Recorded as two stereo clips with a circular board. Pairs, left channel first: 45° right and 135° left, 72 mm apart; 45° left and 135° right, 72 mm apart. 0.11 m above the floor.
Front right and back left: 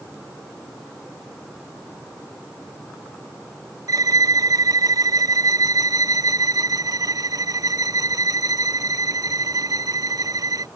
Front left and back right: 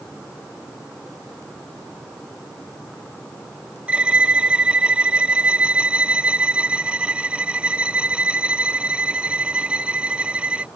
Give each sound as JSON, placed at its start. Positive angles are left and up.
{"t": 3.9, "sound": "a violin", "azimuth_deg": 155}